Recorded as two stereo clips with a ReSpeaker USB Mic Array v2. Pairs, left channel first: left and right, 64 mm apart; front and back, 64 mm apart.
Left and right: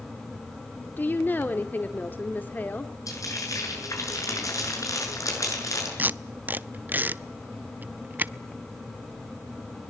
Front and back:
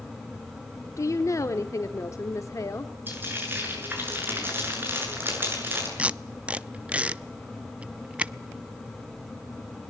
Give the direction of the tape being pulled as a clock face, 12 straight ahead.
4 o'clock.